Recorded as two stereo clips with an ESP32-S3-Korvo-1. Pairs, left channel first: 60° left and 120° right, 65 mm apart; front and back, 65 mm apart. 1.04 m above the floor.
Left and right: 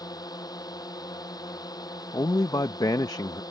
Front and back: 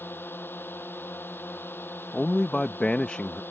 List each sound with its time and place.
0.0 s a drone: 60° left
2.1 s a man speaking: 75° left